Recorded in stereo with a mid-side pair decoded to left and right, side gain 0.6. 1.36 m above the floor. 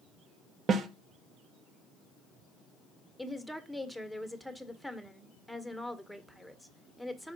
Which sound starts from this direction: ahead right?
A snare drum, at 0.7 s.